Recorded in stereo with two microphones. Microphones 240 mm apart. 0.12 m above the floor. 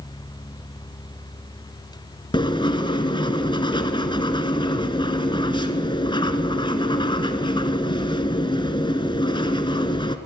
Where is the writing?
20° left (ahead or behind), 1.0 m.